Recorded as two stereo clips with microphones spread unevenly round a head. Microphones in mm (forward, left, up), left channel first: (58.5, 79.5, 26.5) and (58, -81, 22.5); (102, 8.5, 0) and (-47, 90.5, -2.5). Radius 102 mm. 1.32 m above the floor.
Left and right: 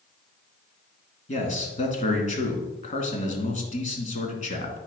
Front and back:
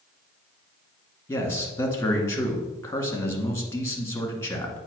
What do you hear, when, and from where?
1.3 s a man speaking: 45° left, 2 m